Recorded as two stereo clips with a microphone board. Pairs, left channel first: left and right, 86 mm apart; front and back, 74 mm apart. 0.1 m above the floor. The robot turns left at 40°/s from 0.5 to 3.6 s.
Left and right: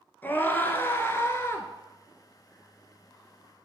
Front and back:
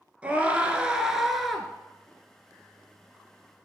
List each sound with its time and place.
0.2 s a scream: 130° left, 1.2 m; by 1.7 s 80° left, 1.2 m